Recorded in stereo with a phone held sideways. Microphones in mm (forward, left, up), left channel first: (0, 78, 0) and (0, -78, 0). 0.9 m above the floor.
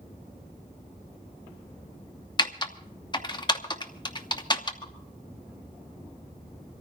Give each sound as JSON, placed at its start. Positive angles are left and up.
{"t": 2.4, "sound": "typing on a keyboard", "side_deg": 30, "distance_m": 0.8}
{"t": 4.8, "sound": "dripping", "side_deg": 30, "distance_m": 2.5}